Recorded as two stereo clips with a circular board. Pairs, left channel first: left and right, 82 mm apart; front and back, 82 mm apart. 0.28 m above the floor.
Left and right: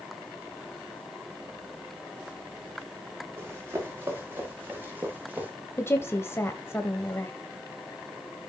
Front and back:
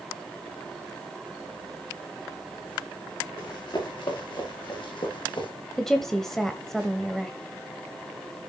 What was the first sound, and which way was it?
Running footsteps, 30° right.